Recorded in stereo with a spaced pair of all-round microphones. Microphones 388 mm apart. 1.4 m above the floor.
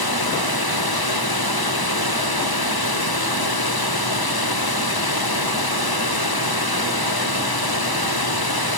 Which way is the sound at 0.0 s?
70° left (ahead or behind).